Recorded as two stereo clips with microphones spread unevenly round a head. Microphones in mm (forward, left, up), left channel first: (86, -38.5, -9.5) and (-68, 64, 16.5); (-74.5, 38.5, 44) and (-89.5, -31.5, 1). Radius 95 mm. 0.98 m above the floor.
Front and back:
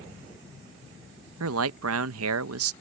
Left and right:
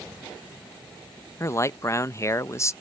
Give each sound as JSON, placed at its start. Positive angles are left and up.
{"t": 1.4, "sound": "a man speaking", "azimuth_deg": 140}